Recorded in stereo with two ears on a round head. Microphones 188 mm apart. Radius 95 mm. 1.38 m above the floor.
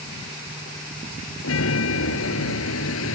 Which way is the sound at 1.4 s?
70° left (ahead or behind).